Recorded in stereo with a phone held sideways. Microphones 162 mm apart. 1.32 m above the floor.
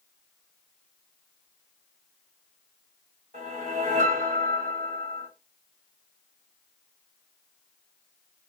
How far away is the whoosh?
About 1.6 m.